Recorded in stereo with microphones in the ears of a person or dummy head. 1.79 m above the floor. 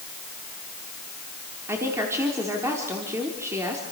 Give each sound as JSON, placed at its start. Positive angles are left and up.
{"t": 1.7, "sound": "a woman speaking", "side_deg": -15, "distance_m": 4.0}